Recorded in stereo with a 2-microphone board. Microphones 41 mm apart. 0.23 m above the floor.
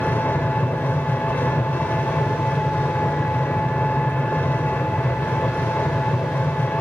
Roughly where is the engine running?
Left.